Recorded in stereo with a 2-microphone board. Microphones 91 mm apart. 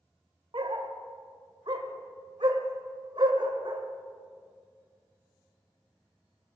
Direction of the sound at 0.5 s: 60° right (ahead or behind).